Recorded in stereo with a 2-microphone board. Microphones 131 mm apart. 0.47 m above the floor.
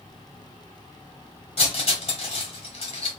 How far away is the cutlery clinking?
About 1.3 m.